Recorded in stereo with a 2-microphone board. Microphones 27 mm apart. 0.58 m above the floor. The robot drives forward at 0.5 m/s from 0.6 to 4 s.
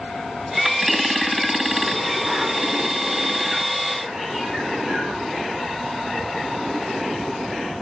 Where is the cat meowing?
5° right (ahead or behind), 3.5 m.